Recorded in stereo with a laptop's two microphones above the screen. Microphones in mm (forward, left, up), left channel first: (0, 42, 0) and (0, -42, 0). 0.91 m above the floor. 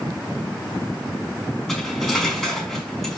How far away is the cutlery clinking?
About 4.5 m.